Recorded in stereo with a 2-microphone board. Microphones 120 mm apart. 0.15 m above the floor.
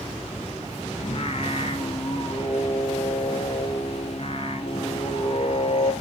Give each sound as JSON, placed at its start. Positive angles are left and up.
{"t": 1.0, "sound": "singing", "side_deg": 50, "distance_m": 1.2}